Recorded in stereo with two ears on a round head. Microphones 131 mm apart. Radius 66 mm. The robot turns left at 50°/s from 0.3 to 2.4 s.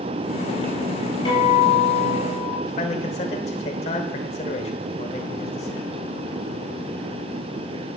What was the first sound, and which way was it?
A guitar, 30° left.